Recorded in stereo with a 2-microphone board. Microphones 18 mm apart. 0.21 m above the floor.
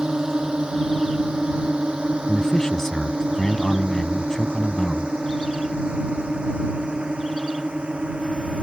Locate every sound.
0.0 s a drone: 55° right (ahead or behind); by 8.6 s 75° right (ahead or behind)
2.3 s a man speaking: 30° left (ahead or behind)